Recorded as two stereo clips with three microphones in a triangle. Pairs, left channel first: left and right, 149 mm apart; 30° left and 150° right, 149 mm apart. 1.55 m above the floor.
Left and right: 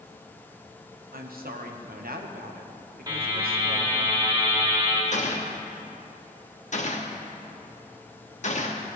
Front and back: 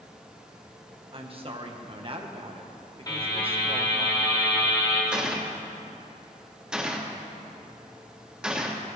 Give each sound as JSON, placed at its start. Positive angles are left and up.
{"t": 1.1, "sound": "a woman speaking", "azimuth_deg": -100, "distance_m": 1.3}
{"t": 3.1, "sound": "a buzzer", "azimuth_deg": -30, "distance_m": 2.0}
{"t": 5.1, "sound": "a gunshot", "azimuth_deg": 125, "distance_m": 1.2}